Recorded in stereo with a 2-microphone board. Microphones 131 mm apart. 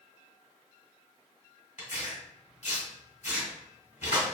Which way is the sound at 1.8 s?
60° left (ahead or behind).